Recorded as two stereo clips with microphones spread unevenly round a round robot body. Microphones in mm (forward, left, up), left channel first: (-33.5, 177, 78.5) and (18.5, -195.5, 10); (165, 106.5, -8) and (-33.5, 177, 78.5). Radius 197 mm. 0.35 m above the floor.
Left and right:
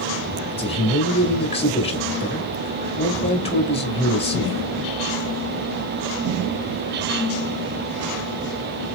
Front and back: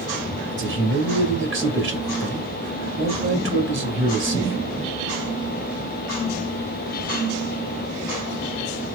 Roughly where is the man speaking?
Behind.